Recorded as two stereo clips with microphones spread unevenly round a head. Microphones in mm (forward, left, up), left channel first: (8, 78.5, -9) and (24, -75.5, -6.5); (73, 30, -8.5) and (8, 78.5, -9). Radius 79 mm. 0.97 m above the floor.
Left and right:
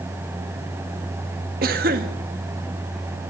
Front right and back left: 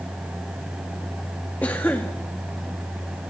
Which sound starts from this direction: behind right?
A cough, at 1.6 s.